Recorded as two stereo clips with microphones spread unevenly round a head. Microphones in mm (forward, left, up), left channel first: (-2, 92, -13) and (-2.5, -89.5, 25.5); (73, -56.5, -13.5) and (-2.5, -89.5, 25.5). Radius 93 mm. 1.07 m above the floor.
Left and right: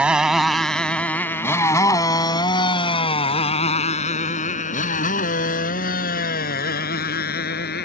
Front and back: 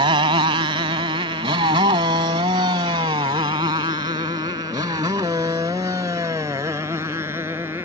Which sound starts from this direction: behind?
A motorcycle, at 0.0 s.